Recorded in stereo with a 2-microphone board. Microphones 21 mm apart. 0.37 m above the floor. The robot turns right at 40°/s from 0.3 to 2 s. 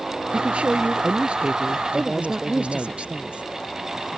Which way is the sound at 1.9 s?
65° right (ahead or behind).